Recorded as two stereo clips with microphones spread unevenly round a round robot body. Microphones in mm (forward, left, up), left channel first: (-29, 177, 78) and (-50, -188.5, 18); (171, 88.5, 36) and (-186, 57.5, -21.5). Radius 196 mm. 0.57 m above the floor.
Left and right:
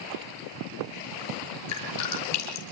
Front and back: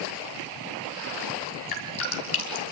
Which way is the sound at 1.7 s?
35° left.